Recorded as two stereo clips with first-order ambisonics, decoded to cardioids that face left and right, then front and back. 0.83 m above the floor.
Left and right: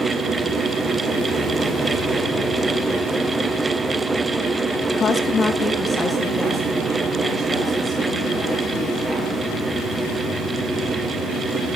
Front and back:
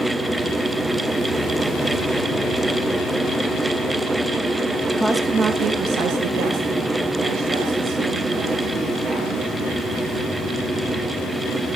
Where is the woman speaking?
75° left, 0.7 m; by 9.4 s 175° left, 3.5 m.